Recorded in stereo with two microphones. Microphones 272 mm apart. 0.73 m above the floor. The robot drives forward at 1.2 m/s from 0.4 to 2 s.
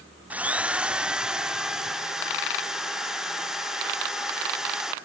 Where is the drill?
5° right (ahead or behind), 0.7 m; by 4.9 s centre (ahead or behind), 2.5 m.